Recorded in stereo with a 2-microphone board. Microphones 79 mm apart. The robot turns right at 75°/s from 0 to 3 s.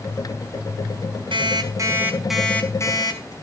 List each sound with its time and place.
1.3 s an alarm clock: 75° right, 4.5 m; by 3.3 s 50° left, 4.5 m